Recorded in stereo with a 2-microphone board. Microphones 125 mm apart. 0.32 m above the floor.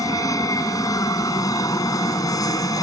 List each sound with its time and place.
0.0 s an aircraft: 30° left (ahead or behind)